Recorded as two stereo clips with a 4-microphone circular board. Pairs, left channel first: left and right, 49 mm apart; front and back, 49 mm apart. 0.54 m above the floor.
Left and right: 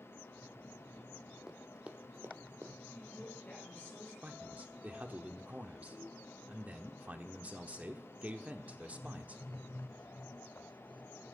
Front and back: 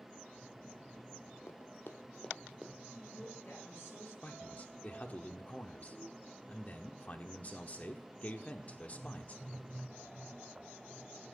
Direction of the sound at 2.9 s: 35° left.